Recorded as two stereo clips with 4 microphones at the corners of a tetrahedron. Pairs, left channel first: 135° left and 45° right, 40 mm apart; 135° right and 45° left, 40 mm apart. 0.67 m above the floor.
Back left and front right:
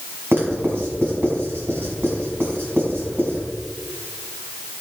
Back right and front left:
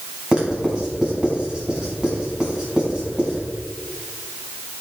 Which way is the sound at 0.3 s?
25° right.